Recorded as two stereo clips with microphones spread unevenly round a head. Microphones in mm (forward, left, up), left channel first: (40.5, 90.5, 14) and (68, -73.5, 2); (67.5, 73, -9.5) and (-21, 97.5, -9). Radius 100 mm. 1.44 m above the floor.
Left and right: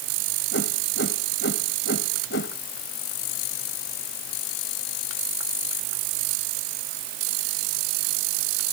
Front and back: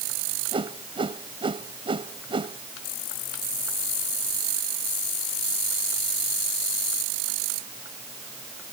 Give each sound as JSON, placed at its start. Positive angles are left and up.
{"t": 0.5, "sound": "a whoosh", "azimuth_deg": 140}